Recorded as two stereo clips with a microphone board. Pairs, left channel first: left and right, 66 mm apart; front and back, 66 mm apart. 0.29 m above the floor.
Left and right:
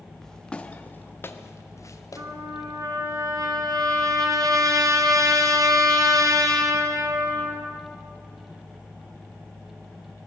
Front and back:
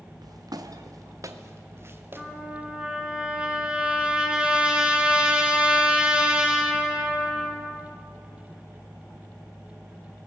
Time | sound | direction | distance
0.2 | footsteps | 175° left | 2.0 m
2.2 | a trumpet | 105° right | 3 m